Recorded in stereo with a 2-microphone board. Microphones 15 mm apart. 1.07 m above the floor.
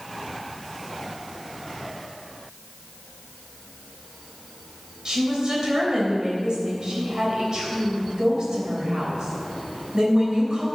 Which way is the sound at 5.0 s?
45° right (ahead or behind).